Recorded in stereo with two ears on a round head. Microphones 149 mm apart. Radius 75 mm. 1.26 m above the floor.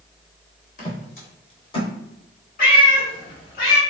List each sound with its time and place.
0.8 s footsteps: 50° left (ahead or behind), 1.9 m; by 1.9 s 25° left (ahead or behind), 1.4 m
2.6 s a cat meowing: 55° left (ahead or behind), 1.4 m